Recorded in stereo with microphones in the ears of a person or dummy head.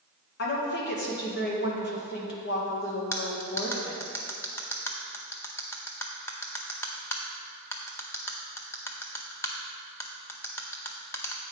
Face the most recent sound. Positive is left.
turn(degrees=15)  # may be behind; listen again after turning